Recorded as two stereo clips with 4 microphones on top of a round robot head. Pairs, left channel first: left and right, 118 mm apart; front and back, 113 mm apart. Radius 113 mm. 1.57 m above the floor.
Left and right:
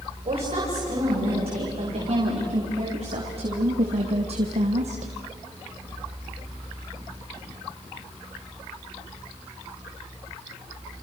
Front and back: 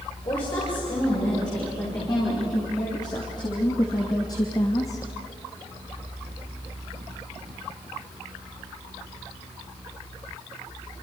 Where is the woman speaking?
55° right, 7 m; by 5.1 s 70° right, 1.1 m.